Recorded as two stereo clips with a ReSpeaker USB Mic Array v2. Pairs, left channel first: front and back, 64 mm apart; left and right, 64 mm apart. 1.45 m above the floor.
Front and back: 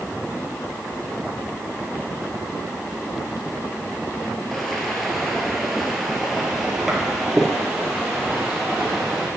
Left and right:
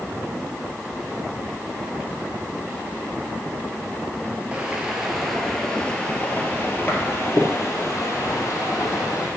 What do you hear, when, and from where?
4.5 s footsteps: 80° right, 1.5 m; by 9.3 s 100° left, 3 m